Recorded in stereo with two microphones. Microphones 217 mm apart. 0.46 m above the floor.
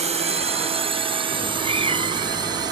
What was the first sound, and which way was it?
A drone, 30° right (ahead or behind).